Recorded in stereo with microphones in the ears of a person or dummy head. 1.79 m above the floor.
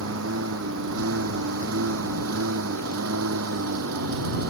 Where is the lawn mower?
80° right.